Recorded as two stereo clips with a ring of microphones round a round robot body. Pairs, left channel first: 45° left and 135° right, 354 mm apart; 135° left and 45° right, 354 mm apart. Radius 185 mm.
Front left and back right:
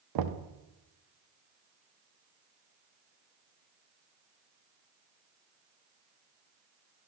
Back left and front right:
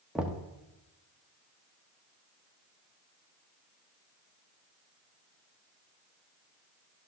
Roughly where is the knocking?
Behind right.